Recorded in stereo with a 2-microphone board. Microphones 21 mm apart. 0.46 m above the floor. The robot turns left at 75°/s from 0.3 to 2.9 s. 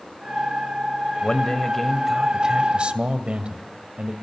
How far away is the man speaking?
About 2 m.